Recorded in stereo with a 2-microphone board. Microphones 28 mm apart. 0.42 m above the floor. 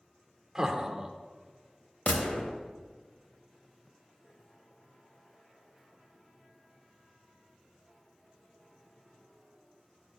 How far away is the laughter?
About 0.8 m.